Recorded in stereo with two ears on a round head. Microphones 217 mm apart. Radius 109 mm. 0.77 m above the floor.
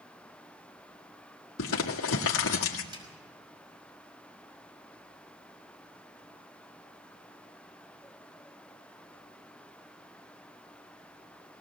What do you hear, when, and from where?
1.6 s crumpling: 55° left (ahead or behind), 1.8 m
2.9 s a snare drum: 20° right (ahead or behind), 5.5 m